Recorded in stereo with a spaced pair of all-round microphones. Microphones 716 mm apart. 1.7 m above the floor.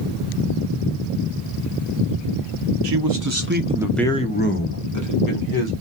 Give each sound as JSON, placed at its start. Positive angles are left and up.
{"t": 2.8, "sound": "a man speaking", "side_deg": -40, "distance_m": 0.6}